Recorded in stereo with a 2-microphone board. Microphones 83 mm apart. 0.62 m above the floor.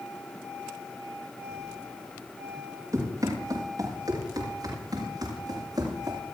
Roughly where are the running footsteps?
Right.